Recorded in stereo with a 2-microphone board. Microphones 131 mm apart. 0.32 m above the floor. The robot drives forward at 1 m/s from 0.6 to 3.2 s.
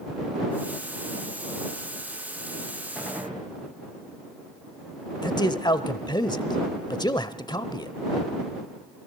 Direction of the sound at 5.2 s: 35° left (ahead or behind).